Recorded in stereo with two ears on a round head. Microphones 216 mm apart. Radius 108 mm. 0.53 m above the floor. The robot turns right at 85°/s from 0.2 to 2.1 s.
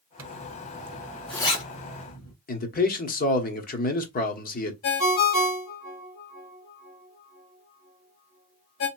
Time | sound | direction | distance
0.2 | a zipper | 80° right | 1.4 m
2.5 | a man speaking | 35° left (ahead or behind) | 1.1 m
4.8 | a ringtone | 60° left (ahead or behind) | 1.8 m